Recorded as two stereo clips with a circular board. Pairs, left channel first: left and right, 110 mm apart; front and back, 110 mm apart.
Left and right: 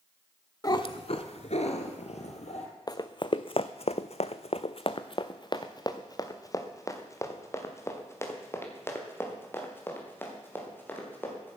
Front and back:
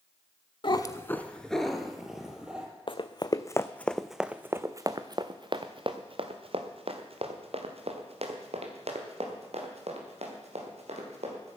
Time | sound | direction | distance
0.6 | a cat meowing | 35° left | 0.7 m
2.9 | running footsteps | 35° left | 0.9 m